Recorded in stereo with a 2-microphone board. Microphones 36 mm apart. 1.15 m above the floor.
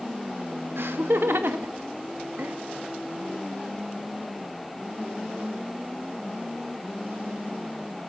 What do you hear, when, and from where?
0.8 s laughter: 75° right (ahead or behind), 2.5 m; by 2.6 s 70° right (ahead or behind), 1.6 m